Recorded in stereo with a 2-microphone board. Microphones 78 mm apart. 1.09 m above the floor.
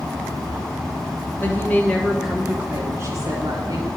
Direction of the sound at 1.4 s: 30° left (ahead or behind).